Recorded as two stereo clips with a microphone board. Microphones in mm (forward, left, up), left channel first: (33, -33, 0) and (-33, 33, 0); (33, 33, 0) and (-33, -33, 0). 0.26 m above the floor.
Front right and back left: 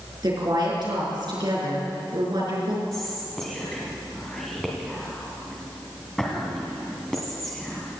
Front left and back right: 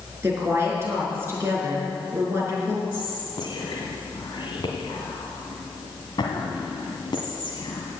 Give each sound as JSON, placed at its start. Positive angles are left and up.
{"t": 0.2, "sound": "a woman speaking", "azimuth_deg": 165, "distance_m": 4.5}
{"t": 2.9, "sound": "whispering", "azimuth_deg": 40, "distance_m": 1.7}